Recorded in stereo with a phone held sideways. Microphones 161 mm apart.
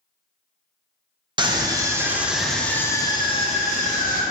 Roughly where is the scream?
Right.